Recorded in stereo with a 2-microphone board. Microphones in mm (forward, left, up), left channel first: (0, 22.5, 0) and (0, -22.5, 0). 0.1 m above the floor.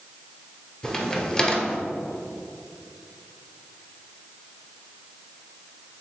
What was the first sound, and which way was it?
A crack, 20° left (ahead or behind).